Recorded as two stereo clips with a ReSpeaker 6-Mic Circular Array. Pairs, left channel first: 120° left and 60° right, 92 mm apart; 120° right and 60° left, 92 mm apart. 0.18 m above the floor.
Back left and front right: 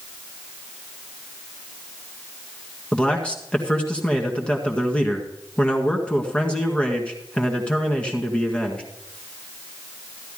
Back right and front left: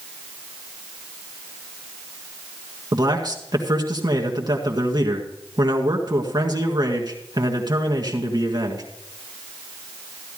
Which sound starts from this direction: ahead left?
A man speaking, at 2.9 s.